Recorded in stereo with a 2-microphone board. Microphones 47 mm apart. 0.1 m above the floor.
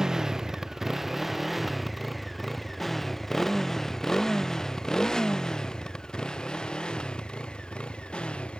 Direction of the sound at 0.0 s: 15° right (ahead or behind).